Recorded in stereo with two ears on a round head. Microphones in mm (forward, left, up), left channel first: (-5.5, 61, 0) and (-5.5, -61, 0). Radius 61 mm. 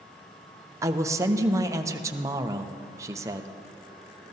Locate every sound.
0.8 s a man speaking: 20° right (ahead or behind), 0.8 m